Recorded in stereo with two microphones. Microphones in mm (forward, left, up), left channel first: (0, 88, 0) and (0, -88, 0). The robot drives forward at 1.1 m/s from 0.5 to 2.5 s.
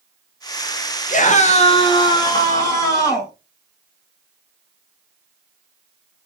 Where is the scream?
45° left (ahead or behind), 0.8 m; by 3.3 s 20° left (ahead or behind), 1.8 m.